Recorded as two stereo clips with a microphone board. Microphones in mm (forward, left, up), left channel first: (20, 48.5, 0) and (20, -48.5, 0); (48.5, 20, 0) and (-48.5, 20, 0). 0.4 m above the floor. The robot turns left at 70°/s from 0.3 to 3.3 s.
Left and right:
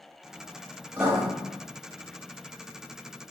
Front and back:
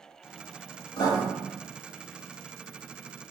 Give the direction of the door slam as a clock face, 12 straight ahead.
No door slam in this recording.